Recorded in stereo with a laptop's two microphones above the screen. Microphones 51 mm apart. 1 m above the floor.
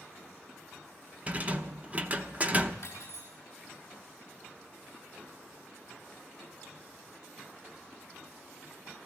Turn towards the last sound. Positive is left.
turn(degrees=60)  # may be behind; listen again after turning